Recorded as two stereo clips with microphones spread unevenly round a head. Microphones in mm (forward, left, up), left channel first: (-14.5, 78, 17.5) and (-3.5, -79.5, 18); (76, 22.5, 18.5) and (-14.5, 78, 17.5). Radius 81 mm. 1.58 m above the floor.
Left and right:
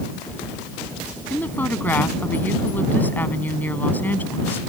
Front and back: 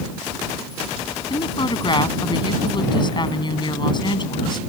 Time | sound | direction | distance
1.3 | a woman speaking | 15° left | ?